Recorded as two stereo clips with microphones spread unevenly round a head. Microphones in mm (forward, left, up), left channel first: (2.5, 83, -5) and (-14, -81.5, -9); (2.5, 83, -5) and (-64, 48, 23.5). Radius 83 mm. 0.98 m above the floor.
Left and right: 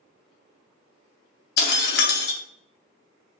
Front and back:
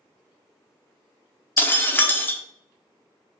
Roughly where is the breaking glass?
Left.